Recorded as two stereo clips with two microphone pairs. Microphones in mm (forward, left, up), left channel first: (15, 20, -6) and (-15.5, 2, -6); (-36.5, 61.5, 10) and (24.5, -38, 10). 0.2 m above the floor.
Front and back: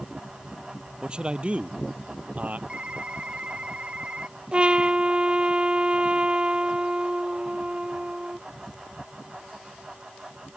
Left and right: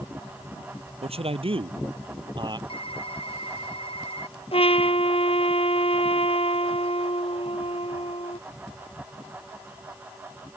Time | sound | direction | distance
1.0 | a man speaking | 85° right | ?
2.7 | typing on a keyboard | 155° left | ?
4.5 | a trumpet | 150° left | ?